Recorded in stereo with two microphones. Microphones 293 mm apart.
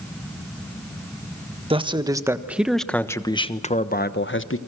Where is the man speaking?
20° right (ahead or behind), 1.5 m; by 4.6 s 45° left (ahead or behind), 1.2 m.